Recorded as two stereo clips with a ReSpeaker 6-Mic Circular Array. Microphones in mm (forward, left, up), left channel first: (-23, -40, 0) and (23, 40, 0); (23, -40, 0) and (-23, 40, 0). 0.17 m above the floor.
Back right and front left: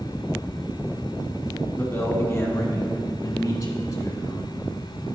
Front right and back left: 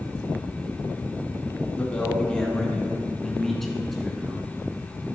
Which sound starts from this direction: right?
A man speaking, at 1.8 s.